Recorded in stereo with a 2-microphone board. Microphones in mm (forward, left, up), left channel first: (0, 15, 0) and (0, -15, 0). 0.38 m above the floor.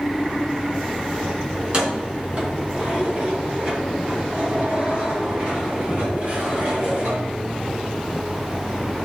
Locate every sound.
1.6 s keys jangling: 30° right (ahead or behind), 3 m; by 7.8 s 35° right (ahead or behind), 6.5 m